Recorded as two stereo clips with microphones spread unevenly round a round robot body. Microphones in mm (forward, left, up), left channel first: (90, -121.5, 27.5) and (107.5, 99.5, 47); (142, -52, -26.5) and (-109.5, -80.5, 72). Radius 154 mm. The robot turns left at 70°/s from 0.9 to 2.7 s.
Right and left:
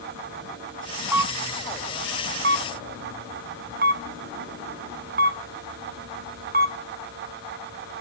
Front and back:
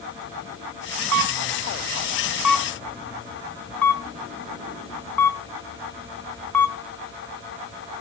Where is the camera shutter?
170° left, 1.3 m; by 6.8 s 60° left, 1.3 m.